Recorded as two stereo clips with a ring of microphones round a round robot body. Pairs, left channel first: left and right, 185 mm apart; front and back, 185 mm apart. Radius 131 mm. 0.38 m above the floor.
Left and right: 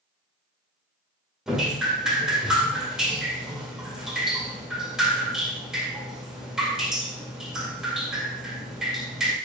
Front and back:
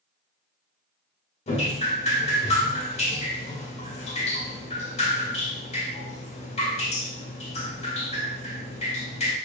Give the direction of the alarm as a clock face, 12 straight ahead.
No alarm in this recording.